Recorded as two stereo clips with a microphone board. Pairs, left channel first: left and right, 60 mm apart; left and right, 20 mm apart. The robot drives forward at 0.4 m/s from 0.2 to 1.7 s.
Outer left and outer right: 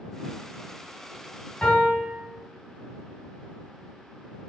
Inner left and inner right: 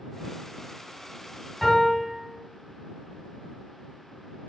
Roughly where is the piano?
Left.